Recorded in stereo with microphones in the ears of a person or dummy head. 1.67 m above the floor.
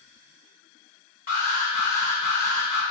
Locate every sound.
1.3 s an alarm: 45° left (ahead or behind), 1.8 m